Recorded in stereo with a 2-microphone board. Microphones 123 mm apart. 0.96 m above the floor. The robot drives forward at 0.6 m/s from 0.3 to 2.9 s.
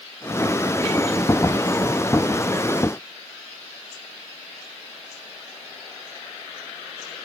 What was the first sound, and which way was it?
Only background noise.